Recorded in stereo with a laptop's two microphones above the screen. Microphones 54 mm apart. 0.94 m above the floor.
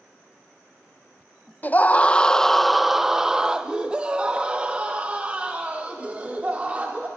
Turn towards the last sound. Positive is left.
turn(degrees=-30)  # may be behind; listen again after turning